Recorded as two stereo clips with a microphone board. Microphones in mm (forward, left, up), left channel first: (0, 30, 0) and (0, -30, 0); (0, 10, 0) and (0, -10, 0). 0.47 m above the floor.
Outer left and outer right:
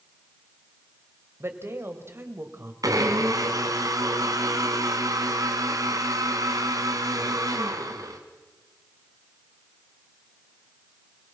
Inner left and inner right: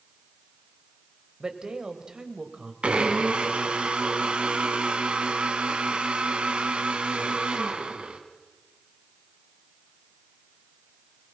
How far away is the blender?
About 2 m.